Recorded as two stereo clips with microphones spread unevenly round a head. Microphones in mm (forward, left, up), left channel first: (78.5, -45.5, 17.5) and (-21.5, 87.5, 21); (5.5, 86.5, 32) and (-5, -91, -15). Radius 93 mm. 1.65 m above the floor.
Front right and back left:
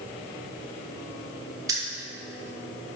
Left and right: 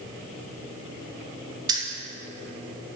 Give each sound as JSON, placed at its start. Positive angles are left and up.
{"t": 1.7, "sound": "keys jangling", "azimuth_deg": -170, "distance_m": 1.1}